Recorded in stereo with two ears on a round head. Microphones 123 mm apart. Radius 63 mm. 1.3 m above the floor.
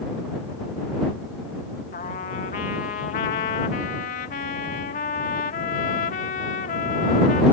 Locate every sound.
1.9 s a trumpet: 65° left (ahead or behind)